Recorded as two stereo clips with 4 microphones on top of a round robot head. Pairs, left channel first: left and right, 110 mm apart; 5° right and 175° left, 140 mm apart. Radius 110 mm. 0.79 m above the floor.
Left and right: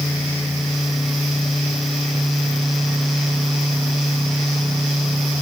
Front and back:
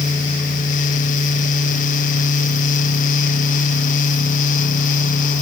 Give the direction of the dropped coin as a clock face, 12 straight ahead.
No dropped coin in this recording.